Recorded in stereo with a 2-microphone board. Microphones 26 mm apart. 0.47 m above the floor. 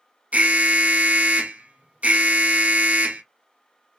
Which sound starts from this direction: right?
An alarm, at 0.3 s.